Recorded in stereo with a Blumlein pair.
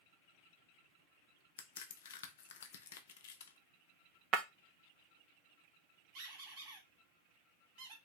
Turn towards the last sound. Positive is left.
turn(degrees=-40)